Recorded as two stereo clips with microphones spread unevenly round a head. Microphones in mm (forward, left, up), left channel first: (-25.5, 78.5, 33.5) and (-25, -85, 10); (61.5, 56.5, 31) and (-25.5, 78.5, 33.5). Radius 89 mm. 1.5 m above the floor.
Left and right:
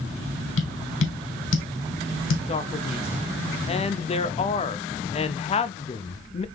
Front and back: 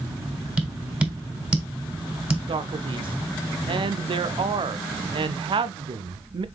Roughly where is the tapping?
Left.